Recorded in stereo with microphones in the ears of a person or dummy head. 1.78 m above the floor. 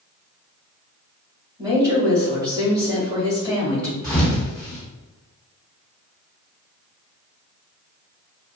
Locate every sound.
1.6 s a woman speaking: 25° right (ahead or behind), 1.6 m
4.0 s a thud: 10° left (ahead or behind), 1.6 m